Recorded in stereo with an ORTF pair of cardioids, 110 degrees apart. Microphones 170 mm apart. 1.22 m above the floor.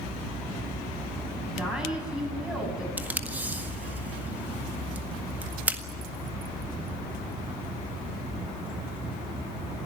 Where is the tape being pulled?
10° right, 1.7 m.